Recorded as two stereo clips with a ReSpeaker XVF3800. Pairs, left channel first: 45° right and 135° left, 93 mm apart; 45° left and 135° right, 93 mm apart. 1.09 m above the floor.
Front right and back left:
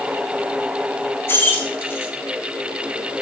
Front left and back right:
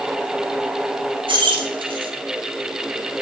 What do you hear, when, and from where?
1.3 s keys jangling: 110° right, 1.2 m